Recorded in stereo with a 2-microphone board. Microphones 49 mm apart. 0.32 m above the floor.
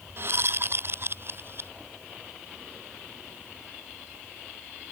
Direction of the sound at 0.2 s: 50° right (ahead or behind).